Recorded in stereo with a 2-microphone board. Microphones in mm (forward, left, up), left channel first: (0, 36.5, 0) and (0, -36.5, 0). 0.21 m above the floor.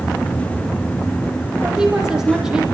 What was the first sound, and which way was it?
A woman speaking, 10° right (ahead or behind).